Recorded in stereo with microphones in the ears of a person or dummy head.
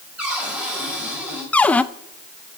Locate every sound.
0.2 s a cupboard door: 5° right (ahead or behind), 6.5 m
1.5 s a cupboard door: 5° left (ahead or behind), 0.5 m